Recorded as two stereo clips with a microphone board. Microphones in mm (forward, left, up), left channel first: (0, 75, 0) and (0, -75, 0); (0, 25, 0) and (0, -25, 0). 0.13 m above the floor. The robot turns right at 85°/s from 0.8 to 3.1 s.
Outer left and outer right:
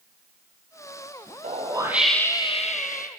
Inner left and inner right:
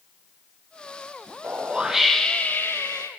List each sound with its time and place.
1.4 s a whoosh: 55° right, 3 m; by 3.1 s 90° left, 3 m